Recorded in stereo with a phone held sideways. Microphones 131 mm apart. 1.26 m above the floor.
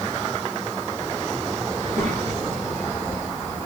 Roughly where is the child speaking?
Right.